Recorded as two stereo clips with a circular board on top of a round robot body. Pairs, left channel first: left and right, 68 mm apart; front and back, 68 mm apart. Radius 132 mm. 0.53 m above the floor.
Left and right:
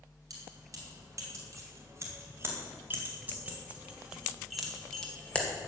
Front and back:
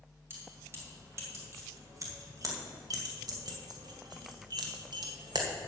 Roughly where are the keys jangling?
Behind right.